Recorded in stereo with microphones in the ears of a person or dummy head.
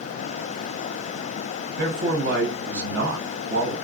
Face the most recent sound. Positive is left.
turn(degrees=-65)  # may be behind; listen again after turning